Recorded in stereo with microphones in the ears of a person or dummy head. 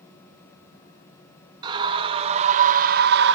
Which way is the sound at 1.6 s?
25° right (ahead or behind).